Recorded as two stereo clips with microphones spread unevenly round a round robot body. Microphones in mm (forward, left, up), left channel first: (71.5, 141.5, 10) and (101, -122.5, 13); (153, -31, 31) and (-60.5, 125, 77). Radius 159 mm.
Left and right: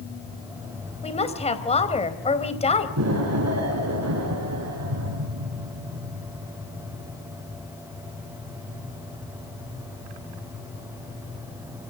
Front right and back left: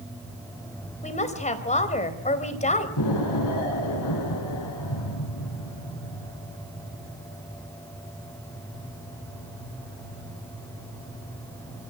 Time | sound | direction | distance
1.0 | a woman speaking | 30° left | 3.5 m
3.0 | an explosion | 55° right | 8.5 m